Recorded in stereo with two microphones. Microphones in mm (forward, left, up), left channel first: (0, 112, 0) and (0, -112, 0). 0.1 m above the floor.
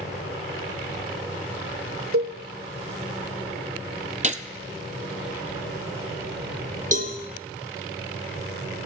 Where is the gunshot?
35° right (ahead or behind), 0.6 m.